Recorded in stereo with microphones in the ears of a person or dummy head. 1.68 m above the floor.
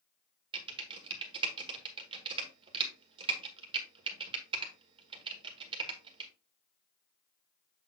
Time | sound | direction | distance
0.5 | typing on a keyboard | 30° right (ahead or behind) | 1.4 m